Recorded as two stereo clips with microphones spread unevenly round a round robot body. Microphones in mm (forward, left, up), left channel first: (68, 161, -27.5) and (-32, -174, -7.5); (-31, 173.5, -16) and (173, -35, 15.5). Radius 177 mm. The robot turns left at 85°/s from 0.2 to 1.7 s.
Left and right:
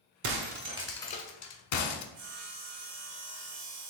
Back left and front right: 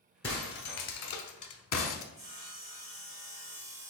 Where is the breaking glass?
140° right, 0.8 m; by 2.0 s 95° left, 0.8 m.